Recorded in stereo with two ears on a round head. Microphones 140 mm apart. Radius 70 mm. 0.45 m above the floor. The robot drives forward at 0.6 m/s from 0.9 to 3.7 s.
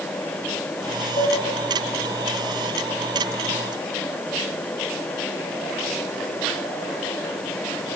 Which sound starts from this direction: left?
Dishes clattering, at 1.2 s.